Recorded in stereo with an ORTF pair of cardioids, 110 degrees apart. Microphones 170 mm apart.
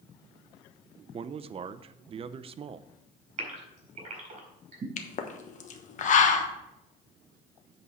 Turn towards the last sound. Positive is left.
turn(degrees=50)